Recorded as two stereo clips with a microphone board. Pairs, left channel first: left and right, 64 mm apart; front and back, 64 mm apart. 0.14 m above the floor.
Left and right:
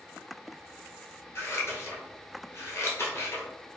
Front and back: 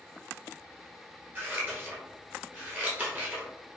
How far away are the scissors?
About 1.0 m.